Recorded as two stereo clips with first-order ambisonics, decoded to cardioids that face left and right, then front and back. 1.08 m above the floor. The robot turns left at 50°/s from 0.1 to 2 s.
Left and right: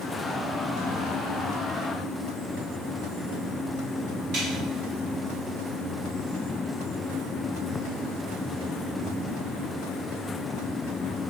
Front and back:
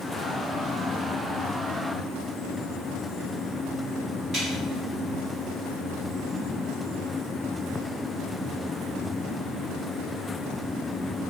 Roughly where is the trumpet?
No trumpet in this recording.